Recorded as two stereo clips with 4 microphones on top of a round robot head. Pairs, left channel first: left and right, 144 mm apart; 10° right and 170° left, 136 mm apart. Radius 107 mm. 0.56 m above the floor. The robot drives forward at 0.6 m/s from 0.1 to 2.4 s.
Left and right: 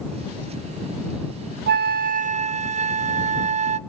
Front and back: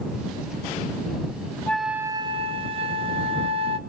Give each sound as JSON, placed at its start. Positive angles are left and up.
{"t": 1.7, "sound": "a flute", "azimuth_deg": -95, "distance_m": 0.6}